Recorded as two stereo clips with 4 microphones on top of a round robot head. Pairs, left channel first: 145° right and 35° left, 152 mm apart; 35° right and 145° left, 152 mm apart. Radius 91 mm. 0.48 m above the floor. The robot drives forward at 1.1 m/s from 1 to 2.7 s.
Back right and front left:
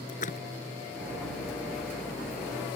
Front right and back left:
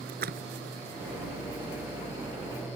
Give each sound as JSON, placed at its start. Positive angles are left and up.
{"t": 0.1, "sound": "a splash", "azimuth_deg": 175}